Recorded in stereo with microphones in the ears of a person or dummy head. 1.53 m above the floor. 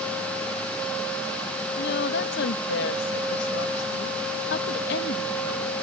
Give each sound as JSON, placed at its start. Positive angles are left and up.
{"t": 1.8, "sound": "a woman speaking", "side_deg": 75}